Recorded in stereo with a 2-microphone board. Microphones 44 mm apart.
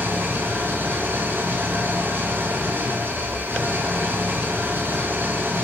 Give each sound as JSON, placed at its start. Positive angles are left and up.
{"t": 0.0, "sound": "an engine running", "side_deg": -55, "distance_m": 4.5}